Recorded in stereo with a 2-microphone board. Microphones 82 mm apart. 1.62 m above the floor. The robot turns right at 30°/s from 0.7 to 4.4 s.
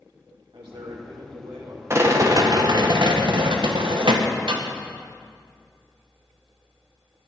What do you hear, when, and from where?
0.5 s a man speaking: 90° right, 3 m; by 1.8 s 60° right, 3 m
1.9 s a rattle: 150° right, 1.3 m; by 4.6 s 75° right, 1.3 m